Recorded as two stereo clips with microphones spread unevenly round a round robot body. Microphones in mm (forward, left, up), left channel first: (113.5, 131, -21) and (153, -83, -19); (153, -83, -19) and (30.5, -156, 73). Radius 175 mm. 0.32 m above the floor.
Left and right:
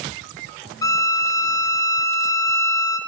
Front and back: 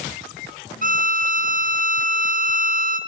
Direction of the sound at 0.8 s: 160° left.